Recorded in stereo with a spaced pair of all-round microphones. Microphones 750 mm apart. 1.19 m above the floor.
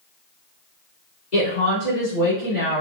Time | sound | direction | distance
1.3 | a woman speaking | 65° left (ahead or behind) | 2.5 m